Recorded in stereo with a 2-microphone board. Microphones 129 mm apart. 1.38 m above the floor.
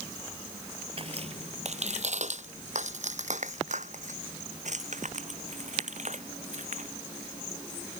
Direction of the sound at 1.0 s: 45° right (ahead or behind).